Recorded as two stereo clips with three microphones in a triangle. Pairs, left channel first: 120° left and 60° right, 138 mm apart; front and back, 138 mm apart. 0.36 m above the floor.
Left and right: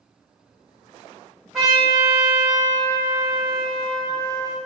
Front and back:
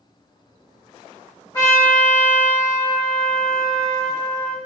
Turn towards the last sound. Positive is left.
turn(degrees=30)